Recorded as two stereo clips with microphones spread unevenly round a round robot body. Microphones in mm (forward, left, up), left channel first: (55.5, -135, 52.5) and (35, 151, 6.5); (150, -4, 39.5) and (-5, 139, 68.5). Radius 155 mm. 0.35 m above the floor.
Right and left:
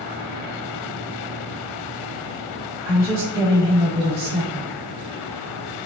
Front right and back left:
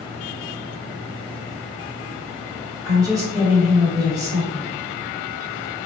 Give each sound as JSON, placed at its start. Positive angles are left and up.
{"t": 2.9, "sound": "a woman speaking", "azimuth_deg": 60, "distance_m": 1.7}